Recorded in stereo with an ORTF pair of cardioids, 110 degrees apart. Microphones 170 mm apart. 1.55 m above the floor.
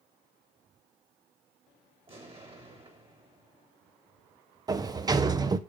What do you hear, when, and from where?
2.1 s an explosion: 35° right, 2.5 m
4.7 s a sliding door: 25° right, 0.6 m